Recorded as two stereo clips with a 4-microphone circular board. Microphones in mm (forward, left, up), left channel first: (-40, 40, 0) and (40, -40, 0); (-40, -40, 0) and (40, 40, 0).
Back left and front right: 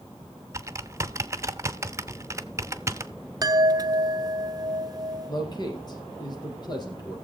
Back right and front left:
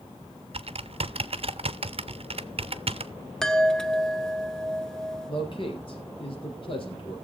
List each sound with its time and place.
0.5 s typing on a keyboard: 20° left, 0.5 m
3.4 s a chime: 55° right, 0.6 m
5.3 s a man speaking: 175° right, 4 m